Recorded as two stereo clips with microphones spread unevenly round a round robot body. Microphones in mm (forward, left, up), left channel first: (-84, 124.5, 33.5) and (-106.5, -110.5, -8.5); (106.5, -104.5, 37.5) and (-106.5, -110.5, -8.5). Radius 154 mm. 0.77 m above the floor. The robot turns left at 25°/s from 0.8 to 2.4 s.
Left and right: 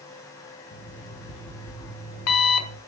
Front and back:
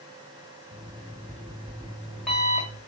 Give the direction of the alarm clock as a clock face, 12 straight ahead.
8 o'clock.